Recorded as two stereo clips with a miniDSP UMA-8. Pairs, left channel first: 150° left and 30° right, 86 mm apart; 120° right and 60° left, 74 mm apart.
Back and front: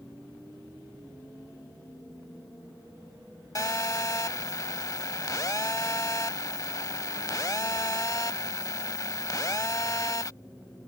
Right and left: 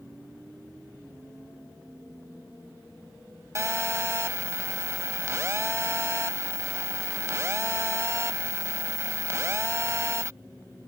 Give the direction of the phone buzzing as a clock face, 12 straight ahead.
8 o'clock.